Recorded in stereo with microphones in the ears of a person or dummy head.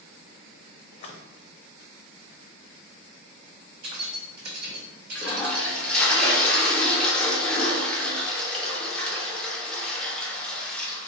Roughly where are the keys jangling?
Right.